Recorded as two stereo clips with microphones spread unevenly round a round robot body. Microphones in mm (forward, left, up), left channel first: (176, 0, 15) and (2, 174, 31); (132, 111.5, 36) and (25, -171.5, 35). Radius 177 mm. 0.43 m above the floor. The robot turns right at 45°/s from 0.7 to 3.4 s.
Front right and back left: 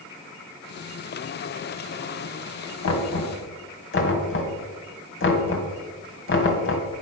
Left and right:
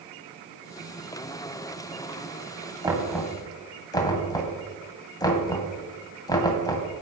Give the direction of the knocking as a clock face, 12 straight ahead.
1 o'clock.